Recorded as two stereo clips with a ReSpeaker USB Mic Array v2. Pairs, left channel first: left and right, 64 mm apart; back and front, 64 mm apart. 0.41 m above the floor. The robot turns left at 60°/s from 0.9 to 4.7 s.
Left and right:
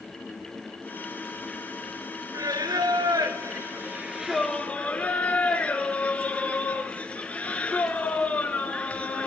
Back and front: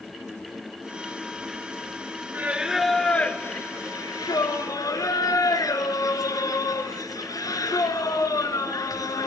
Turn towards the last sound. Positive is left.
turn(degrees=160)